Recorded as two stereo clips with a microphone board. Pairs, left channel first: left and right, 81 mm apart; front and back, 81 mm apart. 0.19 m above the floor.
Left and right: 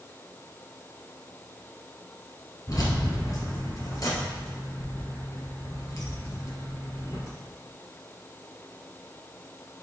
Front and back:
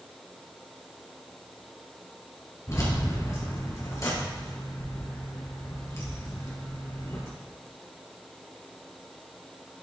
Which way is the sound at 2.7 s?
45° left.